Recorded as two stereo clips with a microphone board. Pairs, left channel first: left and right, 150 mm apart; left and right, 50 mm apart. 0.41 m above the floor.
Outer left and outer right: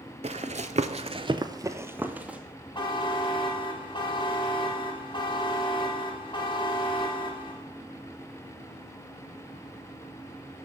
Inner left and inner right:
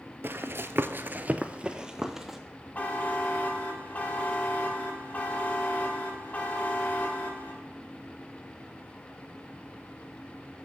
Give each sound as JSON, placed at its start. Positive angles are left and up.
{"t": 0.2, "sound": "running footsteps", "side_deg": -45, "distance_m": 0.6}
{"t": 2.8, "sound": "a buzzer", "side_deg": 30, "distance_m": 1.4}